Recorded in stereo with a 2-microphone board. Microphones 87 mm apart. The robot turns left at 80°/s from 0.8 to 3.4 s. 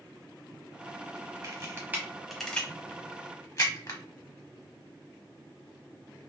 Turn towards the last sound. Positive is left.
turn(degrees=35)  # may be behind; listen again after turning